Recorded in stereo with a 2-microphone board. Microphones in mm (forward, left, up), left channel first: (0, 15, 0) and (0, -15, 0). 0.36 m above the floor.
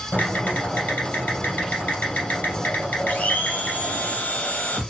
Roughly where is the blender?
Left.